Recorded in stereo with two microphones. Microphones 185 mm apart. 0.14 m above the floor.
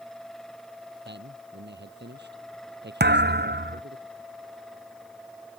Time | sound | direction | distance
1.1 | a man speaking | 70° right (ahead or behind) | ?
3.0 | a thud | 65° right (ahead or behind) | ?